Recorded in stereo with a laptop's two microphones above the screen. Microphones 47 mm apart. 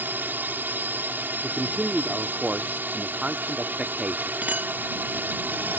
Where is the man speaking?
25° right (ahead or behind).